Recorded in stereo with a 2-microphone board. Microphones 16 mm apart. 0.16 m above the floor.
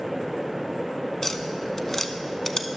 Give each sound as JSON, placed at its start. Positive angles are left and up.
{"t": 1.2, "sound": "tapping", "side_deg": 25, "distance_m": 0.7}